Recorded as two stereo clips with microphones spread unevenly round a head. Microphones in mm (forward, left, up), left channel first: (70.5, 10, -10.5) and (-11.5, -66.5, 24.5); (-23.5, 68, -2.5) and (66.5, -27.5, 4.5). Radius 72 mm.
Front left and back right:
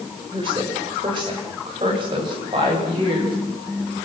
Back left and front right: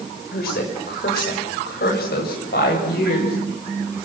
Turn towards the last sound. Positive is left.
turn(degrees=165)